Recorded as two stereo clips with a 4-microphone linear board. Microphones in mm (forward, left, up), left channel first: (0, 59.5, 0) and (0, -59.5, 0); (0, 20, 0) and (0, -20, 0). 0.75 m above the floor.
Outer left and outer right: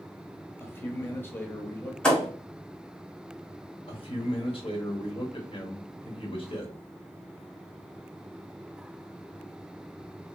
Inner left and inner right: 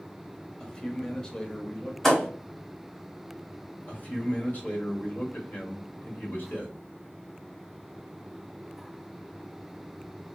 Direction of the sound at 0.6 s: 20° left (ahead or behind).